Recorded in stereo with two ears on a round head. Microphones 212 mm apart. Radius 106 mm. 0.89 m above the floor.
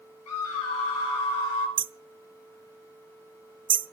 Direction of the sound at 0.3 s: 70° left (ahead or behind).